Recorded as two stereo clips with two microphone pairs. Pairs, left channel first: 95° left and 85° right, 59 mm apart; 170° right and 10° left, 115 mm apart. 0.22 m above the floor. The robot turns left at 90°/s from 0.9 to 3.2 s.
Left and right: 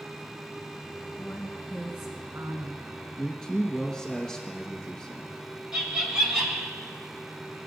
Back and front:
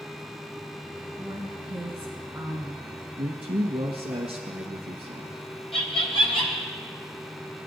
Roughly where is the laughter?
Behind.